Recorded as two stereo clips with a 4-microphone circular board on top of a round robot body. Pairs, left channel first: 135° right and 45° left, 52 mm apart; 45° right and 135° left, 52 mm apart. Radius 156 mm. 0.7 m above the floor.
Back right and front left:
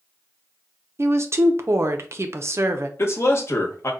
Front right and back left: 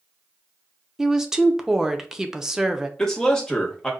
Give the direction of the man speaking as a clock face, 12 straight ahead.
4 o'clock.